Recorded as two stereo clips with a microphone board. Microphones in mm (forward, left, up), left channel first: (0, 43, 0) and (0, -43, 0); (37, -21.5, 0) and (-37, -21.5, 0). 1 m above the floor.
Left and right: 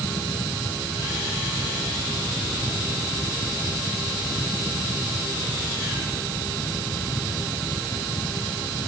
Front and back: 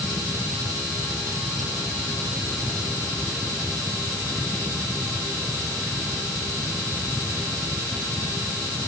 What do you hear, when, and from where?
Only background noise.